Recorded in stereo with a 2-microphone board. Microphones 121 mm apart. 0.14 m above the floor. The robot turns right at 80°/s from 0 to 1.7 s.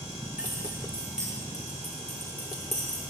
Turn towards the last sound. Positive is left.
turn(degrees=-65)  # may be behind; listen again after turning